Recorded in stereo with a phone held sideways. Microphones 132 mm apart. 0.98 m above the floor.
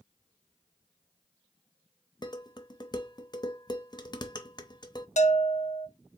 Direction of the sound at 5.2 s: 65° left (ahead or behind).